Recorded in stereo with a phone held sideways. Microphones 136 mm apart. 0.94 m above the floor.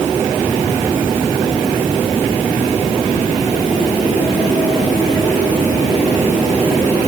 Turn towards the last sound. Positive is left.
No sound to turn to.